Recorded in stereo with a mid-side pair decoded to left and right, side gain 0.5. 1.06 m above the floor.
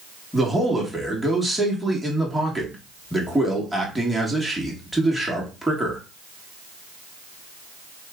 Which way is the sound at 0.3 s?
Straight ahead.